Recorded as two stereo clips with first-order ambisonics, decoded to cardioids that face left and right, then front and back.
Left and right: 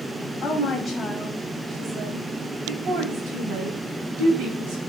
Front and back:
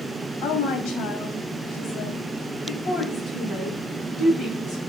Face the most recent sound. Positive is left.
turn(degrees=-75)